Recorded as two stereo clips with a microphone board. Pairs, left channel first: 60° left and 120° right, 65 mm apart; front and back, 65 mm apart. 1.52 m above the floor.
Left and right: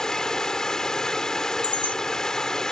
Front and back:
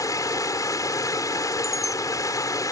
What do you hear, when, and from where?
0.0 s running water: 20° right
1.6 s a chime: 95° left